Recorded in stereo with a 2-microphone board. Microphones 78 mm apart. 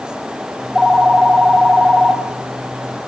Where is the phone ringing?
5° right (ahead or behind), 2.5 m.